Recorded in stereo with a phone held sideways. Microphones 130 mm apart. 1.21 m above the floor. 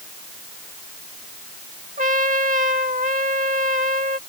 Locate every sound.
2.0 s a trumpet: 80° right